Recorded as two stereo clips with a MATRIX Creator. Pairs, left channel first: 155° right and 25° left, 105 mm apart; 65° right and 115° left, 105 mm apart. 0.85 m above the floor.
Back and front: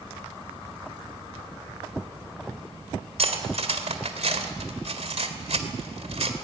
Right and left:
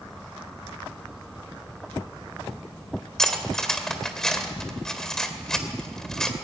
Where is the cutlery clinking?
20° left, 2 m.